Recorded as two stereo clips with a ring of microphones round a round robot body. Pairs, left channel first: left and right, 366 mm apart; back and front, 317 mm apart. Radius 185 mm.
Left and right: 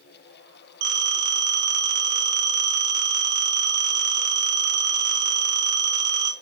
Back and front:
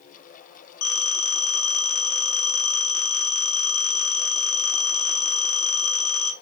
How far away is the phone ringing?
About 1.4 m.